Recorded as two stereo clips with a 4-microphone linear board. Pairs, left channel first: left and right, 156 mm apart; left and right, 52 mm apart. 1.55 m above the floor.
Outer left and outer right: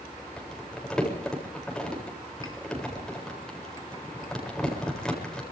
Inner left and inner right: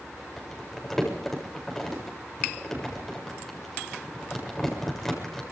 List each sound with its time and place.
0.4 s crumpling: 5° left (ahead or behind), 7.5 m